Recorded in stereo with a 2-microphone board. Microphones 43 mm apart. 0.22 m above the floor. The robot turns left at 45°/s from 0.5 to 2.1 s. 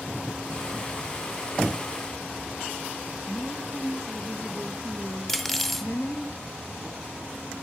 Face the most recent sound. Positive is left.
turn(degrees=5)  # may be behind; listen again after turning